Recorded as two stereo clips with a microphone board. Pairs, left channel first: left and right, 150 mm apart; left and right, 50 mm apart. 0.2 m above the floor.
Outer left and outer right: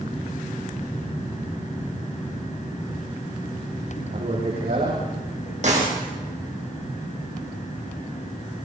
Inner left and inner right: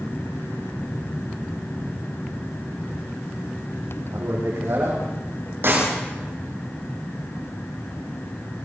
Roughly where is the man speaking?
Right.